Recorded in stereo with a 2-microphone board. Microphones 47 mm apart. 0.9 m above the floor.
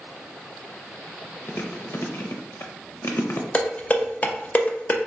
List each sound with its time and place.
1.5 s chewing: 55° left (ahead or behind), 0.7 m
3.5 s dishes clattering: 30° left (ahead or behind), 0.6 m